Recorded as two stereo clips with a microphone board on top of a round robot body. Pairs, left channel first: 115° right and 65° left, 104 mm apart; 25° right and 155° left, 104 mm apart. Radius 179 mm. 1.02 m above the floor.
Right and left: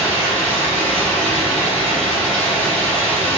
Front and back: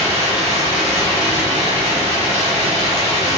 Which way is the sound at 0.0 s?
170° left.